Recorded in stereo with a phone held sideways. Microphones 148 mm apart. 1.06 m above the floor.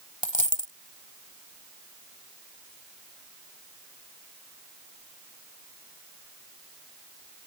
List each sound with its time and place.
0.2 s a dropped coin: 60° left (ahead or behind)